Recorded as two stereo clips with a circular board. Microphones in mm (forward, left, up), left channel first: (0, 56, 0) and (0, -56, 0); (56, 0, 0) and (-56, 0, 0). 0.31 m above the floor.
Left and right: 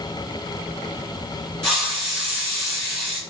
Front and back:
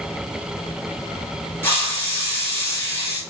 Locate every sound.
1.6 s a hiss: 15° left, 1.6 m